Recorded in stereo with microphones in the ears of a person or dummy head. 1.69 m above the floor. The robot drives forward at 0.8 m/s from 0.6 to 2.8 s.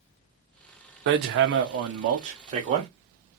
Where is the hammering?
65° right (ahead or behind), 1.0 m; by 2.9 s 35° right (ahead or behind), 1.6 m.